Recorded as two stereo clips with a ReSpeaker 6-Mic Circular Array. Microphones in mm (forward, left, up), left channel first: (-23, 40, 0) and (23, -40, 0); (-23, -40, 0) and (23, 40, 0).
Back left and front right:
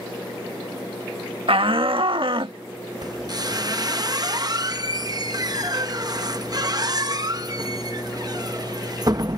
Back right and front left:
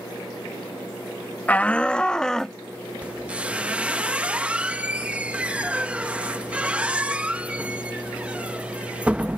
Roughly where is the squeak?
Ahead.